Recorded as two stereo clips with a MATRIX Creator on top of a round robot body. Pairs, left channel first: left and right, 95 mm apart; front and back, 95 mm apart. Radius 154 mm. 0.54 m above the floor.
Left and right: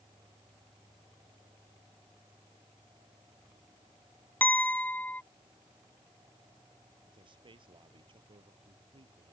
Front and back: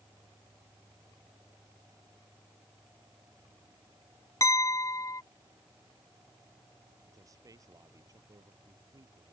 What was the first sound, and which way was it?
A clink, 25° left.